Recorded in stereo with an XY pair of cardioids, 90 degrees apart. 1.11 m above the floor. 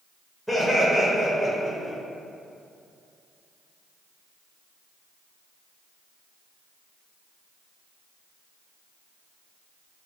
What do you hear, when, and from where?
0.5 s laughter: 5° right, 0.7 m